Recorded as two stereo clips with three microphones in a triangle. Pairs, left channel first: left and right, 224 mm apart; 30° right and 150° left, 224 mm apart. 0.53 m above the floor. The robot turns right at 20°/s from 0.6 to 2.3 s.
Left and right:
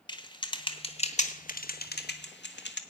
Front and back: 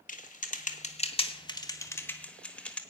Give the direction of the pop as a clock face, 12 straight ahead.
No pop in this recording.